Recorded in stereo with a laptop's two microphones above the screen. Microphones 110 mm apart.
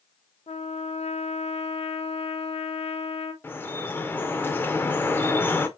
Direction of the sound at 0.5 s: 70° left (ahead or behind).